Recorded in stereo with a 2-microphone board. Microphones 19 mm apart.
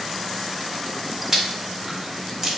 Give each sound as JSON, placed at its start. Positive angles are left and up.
{"t": 1.3, "sound": "chewing", "side_deg": -20, "distance_m": 1.0}